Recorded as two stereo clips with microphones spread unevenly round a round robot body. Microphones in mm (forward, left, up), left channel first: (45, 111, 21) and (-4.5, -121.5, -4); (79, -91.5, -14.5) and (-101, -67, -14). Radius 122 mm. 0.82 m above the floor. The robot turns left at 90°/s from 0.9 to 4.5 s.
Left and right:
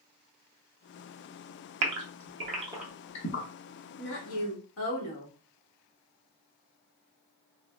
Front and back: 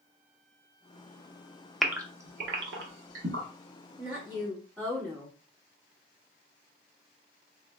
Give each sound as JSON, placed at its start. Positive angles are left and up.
{"t": 1.8, "sound": "a gasp", "azimuth_deg": -100, "distance_m": 0.7}
{"t": 4.0, "sound": "a woman speaking", "azimuth_deg": 120, "distance_m": 1.1}